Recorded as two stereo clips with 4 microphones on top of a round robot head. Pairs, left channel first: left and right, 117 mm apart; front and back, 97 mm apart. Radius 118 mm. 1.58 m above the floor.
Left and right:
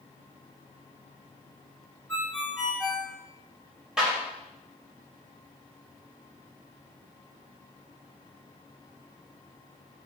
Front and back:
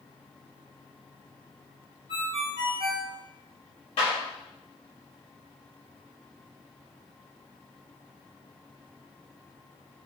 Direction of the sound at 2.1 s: 170° left.